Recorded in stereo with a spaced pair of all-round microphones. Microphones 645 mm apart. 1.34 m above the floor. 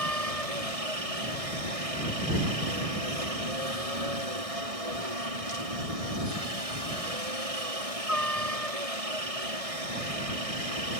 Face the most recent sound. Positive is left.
turn(degrees=-60)  # may be behind; listen again after turning